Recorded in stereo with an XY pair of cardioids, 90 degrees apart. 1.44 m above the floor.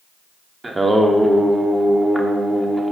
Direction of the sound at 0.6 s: 20° right.